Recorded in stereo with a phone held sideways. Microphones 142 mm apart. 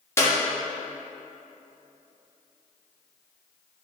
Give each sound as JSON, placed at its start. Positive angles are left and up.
{"t": 0.2, "sound": "a clap", "side_deg": 20, "distance_m": 1.1}